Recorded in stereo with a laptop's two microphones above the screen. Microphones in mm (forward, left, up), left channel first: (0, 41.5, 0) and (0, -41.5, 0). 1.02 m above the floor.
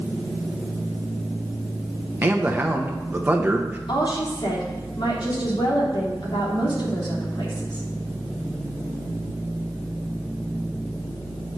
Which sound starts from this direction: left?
A woman speaking, at 3.9 s.